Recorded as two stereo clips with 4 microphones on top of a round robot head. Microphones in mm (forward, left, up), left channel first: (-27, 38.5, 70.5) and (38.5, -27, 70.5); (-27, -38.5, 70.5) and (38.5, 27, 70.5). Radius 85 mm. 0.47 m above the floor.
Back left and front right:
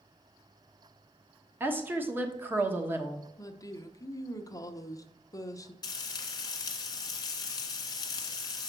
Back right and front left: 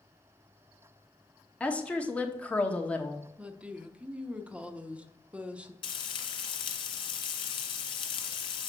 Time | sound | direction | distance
1.6 | a woman speaking | 75° right | 1.4 m
3.4 | a woman speaking | 115° left | 0.9 m
5.8 | frying | 175° right | 1.2 m